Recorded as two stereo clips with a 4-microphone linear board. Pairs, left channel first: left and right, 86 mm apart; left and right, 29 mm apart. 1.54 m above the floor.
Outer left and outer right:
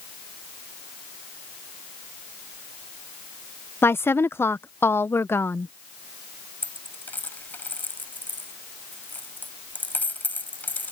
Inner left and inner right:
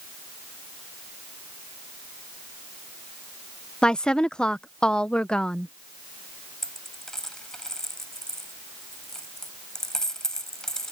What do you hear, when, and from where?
3.8 s a woman speaking: 30° left (ahead or behind)
6.6 s a dropped coin: 20° left (ahead or behind)